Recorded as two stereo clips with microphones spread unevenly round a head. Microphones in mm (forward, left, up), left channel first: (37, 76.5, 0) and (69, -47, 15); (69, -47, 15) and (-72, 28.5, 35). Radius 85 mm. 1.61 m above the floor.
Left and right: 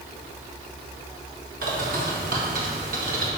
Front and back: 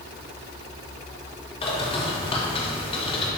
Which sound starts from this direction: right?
A bird, at 1.6 s.